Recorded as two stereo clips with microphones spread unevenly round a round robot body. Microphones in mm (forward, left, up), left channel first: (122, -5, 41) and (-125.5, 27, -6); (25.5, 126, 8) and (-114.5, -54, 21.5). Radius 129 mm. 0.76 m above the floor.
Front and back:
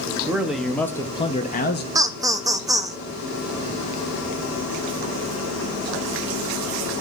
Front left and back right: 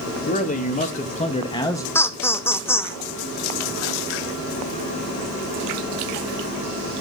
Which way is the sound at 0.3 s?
95° left.